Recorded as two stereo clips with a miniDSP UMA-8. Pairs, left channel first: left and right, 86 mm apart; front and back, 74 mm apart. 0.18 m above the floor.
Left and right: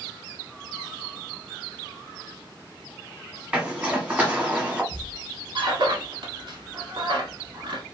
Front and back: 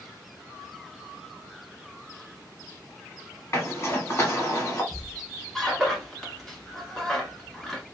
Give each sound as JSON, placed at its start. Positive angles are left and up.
{"t": 3.5, "sound": "a zipper", "azimuth_deg": -20, "distance_m": 1.2}
{"t": 4.9, "sound": "a squeak", "azimuth_deg": -85, "distance_m": 0.9}